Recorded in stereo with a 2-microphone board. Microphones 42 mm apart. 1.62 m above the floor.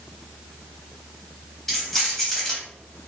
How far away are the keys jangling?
About 1.1 m.